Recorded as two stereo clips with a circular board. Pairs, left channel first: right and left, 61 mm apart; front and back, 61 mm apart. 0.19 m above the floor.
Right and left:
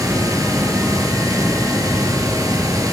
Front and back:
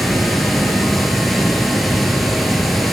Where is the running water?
90° left, 3.5 m.